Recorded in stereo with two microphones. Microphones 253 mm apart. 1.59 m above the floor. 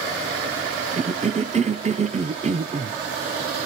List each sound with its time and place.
1.0 s a cough: 25° right (ahead or behind), 0.9 m